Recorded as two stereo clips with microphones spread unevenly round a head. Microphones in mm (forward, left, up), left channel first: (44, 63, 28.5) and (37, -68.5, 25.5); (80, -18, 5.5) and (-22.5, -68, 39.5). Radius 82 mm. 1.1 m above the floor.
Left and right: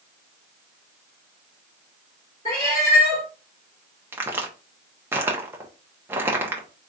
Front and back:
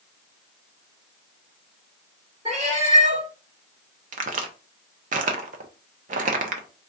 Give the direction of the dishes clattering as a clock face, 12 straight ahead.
No dishes clattering in this recording.